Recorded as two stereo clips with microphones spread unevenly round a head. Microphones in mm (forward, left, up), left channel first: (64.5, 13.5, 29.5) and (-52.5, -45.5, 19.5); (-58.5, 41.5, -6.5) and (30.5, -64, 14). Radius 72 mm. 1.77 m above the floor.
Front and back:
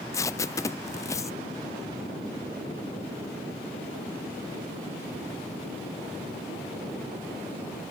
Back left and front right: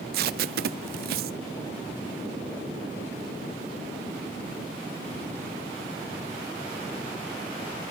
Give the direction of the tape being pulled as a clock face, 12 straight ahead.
1 o'clock.